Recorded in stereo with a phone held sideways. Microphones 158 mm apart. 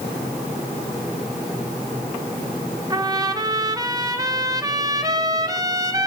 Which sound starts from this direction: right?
A trumpet, at 2.9 s.